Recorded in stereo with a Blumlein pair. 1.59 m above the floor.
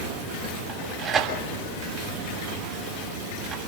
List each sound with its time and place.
0.7 s tearing paper: 25° right, 7.5 m